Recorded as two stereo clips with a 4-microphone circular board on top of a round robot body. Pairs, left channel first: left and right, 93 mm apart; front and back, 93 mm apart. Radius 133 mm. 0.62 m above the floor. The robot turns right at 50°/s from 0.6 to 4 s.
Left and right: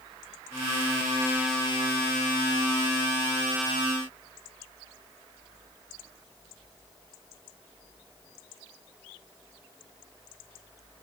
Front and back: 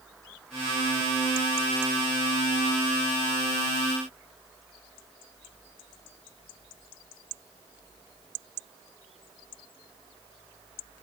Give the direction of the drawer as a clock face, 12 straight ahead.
I don't hear a drawer.